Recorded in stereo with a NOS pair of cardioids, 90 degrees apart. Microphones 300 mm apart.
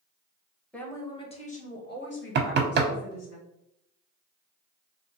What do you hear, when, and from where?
0.7 s a woman speaking: 5° left, 1.3 m; by 3.4 s 60° left, 1.9 m
2.4 s knocking: 35° right, 0.8 m